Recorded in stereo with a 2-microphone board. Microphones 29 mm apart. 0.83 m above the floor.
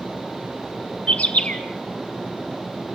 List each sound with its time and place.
1.1 s a bird: 55° left (ahead or behind), 1.5 m